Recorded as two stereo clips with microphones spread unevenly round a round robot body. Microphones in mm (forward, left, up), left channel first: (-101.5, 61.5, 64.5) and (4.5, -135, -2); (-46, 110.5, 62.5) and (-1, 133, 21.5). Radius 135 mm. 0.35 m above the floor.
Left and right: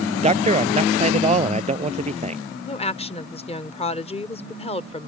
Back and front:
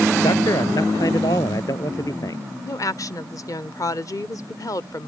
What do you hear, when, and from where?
0.2 s a man speaking: 120° right
2.6 s a woman speaking: 175° right